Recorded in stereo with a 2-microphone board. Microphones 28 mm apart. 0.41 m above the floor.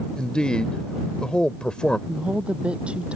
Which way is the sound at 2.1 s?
40° right (ahead or behind).